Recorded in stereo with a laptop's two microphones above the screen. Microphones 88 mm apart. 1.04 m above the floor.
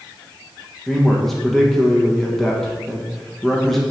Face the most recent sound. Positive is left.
turn(degrees=0)  # may be behind; listen again after turning